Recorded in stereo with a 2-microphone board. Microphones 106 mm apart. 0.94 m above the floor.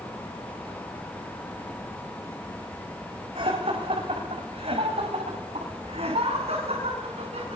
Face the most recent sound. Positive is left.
turn(degrees=-85)